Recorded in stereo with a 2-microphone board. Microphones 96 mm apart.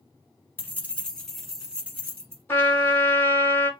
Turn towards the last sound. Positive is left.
turn(degrees=20)  # may be behind; listen again after turning